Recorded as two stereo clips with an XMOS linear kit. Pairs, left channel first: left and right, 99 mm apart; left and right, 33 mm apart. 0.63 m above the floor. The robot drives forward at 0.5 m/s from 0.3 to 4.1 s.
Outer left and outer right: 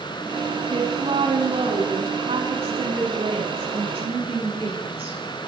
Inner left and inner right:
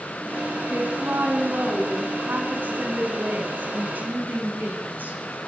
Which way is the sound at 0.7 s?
80° right.